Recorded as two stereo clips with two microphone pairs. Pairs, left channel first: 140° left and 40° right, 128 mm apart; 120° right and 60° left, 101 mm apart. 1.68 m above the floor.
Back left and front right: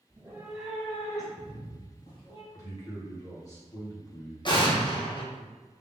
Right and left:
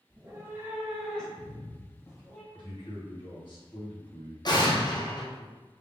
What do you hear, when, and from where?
0.1 s a cat meowing: 15° left, 1.1 m; by 2.4 s straight behind, 1.9 m
2.5 s a man speaking: 160° right, 2.0 m
4.5 s an explosion: 165° right, 0.8 m